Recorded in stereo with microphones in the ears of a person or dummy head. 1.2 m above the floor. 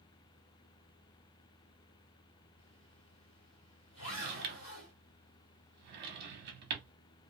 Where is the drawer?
55° right (ahead or behind), 0.7 m.